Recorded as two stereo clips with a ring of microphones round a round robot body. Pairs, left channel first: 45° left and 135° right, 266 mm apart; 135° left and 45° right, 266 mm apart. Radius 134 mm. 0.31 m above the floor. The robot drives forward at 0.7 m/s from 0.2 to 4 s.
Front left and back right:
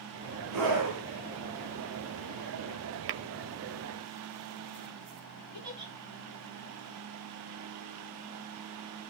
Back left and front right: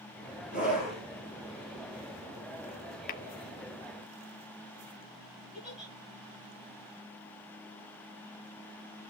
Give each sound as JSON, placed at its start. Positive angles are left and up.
{"t": 0.5, "sound": "a scream", "azimuth_deg": -130, "distance_m": 6.5}
{"t": 3.1, "sound": "tapping", "azimuth_deg": -175, "distance_m": 0.5}
{"t": 5.5, "sound": "a giggle", "azimuth_deg": -135, "distance_m": 9.5}